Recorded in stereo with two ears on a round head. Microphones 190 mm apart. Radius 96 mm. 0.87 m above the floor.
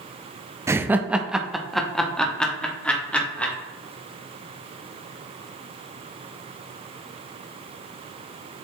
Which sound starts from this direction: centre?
Laughter, at 0.7 s.